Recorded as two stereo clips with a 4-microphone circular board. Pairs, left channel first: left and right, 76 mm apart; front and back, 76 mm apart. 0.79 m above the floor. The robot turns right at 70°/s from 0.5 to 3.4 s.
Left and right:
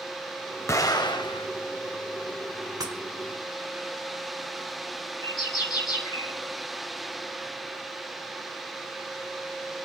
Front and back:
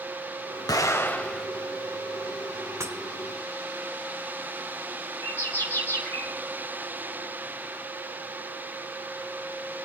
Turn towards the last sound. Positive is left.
turn(degrees=60)